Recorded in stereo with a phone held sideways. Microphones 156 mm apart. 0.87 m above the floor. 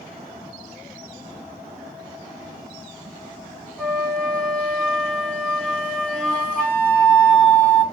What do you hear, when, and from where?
3.8 s a flute: 5° left (ahead or behind), 3.5 m